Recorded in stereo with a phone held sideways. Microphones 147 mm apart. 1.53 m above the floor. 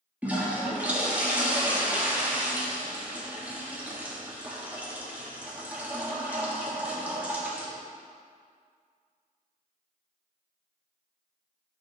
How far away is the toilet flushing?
About 1.4 m.